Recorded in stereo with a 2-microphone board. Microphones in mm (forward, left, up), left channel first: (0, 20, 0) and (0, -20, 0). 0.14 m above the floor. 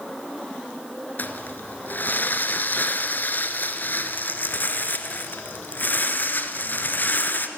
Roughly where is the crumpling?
Left.